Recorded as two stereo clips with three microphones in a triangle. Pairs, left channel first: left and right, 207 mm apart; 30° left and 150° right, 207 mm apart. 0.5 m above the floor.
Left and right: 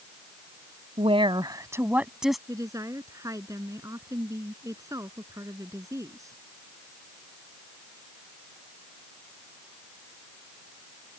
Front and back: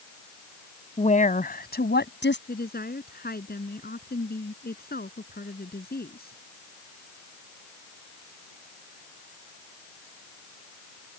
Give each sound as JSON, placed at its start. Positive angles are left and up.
{"t": 1.0, "sound": "a woman speaking", "azimuth_deg": -30}
{"t": 2.5, "sound": "a woman speaking", "azimuth_deg": -15}